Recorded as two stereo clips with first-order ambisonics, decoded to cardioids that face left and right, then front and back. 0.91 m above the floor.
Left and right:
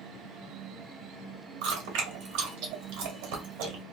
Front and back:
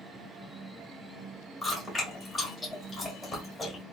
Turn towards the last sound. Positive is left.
turn(degrees=-80)